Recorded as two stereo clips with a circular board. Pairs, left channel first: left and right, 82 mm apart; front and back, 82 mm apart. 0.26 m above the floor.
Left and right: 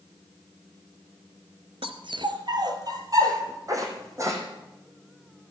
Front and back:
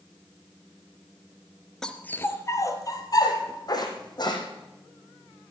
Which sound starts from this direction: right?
A dog barking, at 1.8 s.